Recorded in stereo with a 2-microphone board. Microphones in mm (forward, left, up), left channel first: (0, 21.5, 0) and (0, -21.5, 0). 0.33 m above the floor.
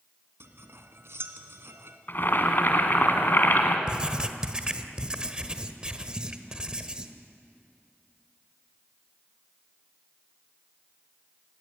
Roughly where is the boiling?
Left.